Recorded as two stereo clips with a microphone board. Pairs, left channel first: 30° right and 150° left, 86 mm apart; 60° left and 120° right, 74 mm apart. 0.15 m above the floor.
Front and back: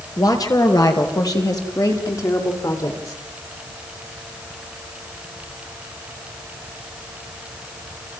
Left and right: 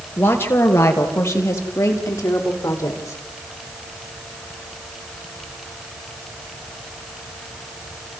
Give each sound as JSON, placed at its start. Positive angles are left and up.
{"t": 0.2, "sound": "a woman speaking", "azimuth_deg": 5, "distance_m": 3.0}